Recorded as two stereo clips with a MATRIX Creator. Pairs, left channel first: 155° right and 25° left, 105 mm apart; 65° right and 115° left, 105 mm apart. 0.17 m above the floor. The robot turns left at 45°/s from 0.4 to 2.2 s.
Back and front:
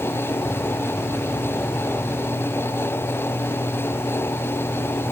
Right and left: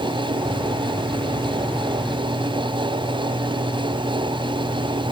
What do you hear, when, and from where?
Only background noise.